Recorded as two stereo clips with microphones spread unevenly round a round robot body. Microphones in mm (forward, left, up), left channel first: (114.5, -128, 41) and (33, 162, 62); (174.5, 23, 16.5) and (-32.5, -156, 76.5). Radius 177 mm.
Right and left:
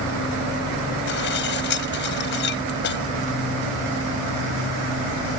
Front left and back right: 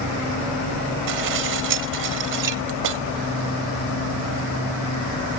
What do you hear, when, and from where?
1.1 s dishes clattering: 130° right